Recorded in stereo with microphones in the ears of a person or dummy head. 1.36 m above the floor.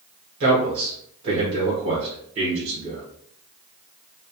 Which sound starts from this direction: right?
A man speaking, at 0.4 s.